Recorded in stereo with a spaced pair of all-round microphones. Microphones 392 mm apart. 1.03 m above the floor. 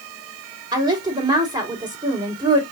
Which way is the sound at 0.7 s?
10° right (ahead or behind).